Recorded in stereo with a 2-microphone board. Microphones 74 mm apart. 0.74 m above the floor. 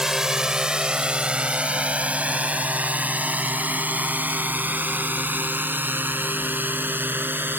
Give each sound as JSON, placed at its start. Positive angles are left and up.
{"t": 0.0, "sound": "a drone", "side_deg": -5}